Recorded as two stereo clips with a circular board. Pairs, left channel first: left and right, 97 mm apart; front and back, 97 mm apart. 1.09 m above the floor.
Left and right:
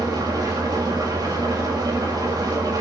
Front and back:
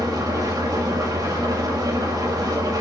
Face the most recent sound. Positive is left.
turn(degrees=-135)